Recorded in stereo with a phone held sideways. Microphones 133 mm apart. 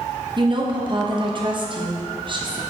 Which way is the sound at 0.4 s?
35° right (ahead or behind).